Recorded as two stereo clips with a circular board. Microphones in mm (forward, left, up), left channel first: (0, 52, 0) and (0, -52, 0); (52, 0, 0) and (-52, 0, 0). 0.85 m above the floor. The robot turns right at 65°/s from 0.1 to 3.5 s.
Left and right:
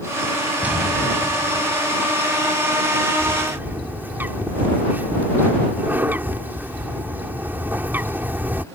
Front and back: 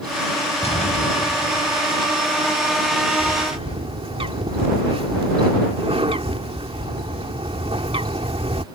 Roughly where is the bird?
Behind.